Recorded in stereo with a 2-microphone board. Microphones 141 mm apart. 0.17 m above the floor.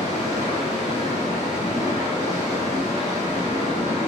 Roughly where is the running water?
Left.